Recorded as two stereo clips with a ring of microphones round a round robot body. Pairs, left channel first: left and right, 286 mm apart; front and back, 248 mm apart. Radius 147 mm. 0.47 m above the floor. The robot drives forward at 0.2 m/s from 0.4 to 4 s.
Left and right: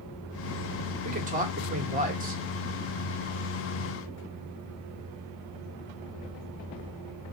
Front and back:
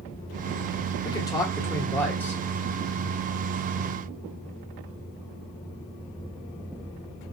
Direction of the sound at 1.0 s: 60° right.